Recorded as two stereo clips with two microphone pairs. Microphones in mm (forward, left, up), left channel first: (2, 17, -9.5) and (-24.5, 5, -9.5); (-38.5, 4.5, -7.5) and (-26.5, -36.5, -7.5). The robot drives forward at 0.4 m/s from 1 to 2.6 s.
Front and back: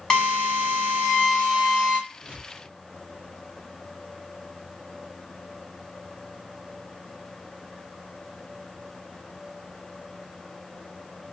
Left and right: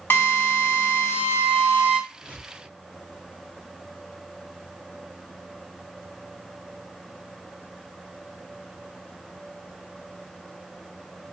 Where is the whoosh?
105° left, 2 m; by 2.7 s 110° left, 2 m.